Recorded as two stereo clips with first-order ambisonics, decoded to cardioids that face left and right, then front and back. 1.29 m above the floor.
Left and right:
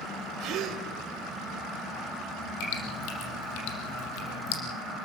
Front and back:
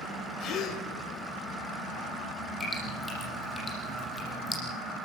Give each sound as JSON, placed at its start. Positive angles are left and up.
{"t": 0.4, "sound": "a gasp", "azimuth_deg": -50, "distance_m": 3.0}
{"t": 2.6, "sound": "dripping", "azimuth_deg": 80, "distance_m": 6.5}